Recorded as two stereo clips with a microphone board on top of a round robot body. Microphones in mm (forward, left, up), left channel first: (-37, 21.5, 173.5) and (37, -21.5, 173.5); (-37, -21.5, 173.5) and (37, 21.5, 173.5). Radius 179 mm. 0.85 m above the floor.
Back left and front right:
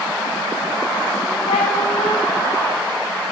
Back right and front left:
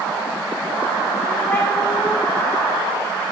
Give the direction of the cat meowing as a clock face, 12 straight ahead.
7 o'clock.